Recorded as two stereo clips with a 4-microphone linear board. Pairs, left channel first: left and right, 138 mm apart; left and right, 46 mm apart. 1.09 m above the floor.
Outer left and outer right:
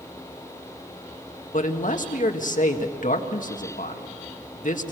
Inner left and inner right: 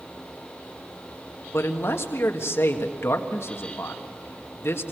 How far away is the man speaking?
About 1.8 m.